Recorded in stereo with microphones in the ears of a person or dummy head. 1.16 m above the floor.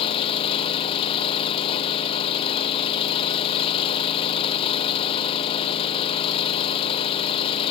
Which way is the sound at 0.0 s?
30° left (ahead or behind).